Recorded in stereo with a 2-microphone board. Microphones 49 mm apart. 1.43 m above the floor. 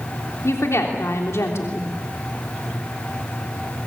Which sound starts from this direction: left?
A woman speaking, at 0.4 s.